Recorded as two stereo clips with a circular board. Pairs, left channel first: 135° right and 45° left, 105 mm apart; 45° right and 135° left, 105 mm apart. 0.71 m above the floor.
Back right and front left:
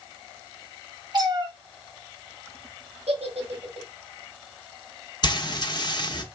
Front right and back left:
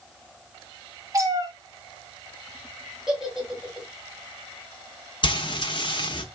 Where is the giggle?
50° left, 1.3 m.